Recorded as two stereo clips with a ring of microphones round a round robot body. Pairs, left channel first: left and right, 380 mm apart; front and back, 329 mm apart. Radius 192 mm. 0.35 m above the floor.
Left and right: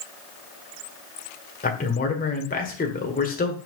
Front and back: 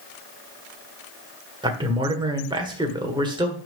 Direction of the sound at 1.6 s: 120° left.